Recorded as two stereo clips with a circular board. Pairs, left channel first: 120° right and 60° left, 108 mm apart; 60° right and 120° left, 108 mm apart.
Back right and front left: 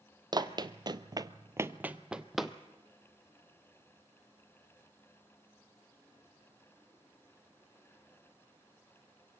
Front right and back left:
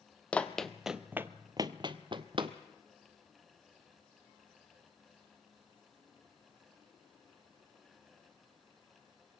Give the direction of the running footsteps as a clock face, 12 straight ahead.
11 o'clock.